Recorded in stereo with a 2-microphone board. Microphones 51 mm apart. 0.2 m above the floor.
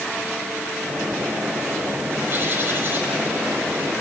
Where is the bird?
40° right (ahead or behind), 7 m.